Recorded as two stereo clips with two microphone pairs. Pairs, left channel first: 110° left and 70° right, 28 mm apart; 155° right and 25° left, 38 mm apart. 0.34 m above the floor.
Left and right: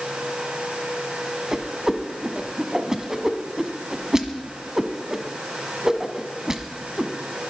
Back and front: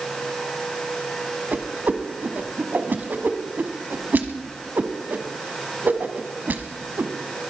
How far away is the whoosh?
About 1.2 m.